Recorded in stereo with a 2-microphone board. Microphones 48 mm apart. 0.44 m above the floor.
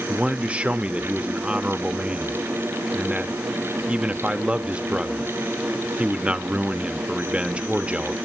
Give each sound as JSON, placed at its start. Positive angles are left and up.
{"t": 0.1, "sound": "a man speaking", "side_deg": -25, "distance_m": 0.8}